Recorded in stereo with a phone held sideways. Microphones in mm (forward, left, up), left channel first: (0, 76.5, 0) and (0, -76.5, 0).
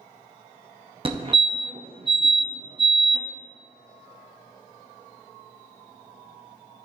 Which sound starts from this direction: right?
A fire alarm, at 1.1 s.